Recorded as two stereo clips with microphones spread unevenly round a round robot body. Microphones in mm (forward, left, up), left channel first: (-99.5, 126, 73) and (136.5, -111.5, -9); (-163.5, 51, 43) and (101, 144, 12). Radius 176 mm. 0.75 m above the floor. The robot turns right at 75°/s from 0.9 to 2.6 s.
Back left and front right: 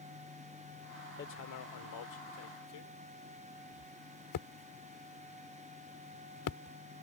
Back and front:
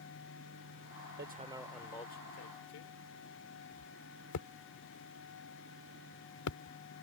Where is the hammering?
70° left; by 6.8 s 175° left.